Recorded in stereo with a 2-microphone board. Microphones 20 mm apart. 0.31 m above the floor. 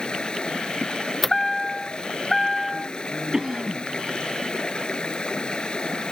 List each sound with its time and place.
0.0 s running water: 50° left (ahead or behind)
1.2 s a chime: 10° left (ahead or behind)
3.3 s a cough: 30° right (ahead or behind)